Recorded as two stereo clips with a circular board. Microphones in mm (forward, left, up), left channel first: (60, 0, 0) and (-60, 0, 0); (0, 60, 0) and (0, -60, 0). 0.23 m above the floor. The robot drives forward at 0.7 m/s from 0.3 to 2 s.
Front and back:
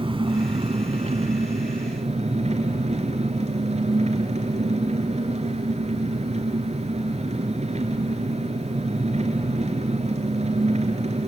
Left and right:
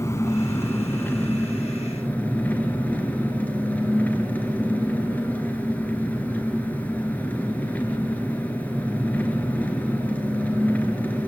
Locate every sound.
0.0 s an engine running: 150° left, 1.3 m; by 11.3 s 165° left, 2.5 m